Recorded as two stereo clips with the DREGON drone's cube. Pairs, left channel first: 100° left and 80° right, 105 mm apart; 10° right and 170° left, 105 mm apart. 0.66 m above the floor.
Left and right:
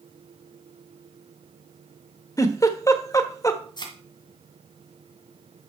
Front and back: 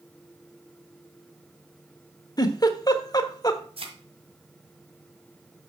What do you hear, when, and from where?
2.4 s a giggle: 40° left, 1.1 m
3.8 s a thud: 145° left, 1.9 m